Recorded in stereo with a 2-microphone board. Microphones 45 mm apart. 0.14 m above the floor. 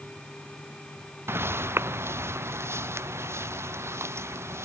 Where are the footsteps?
60° right (ahead or behind); by 4.7 s 75° right (ahead or behind).